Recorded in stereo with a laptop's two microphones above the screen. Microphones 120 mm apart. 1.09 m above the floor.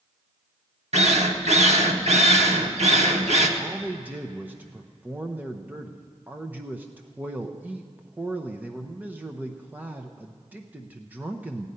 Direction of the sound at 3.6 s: 15° right (ahead or behind).